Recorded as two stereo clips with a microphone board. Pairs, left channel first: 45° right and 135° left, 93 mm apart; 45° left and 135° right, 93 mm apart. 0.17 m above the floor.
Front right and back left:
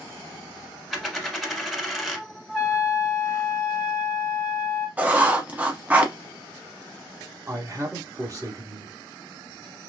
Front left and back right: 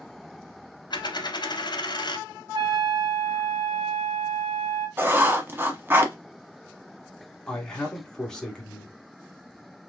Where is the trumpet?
120° right, 2.5 m.